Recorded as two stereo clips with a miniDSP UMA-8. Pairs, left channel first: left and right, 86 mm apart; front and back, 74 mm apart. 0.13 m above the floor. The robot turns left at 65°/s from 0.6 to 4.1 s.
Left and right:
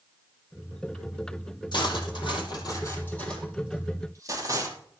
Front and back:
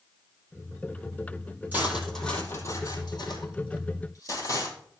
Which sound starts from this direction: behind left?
Cutlery clinking, at 1.7 s.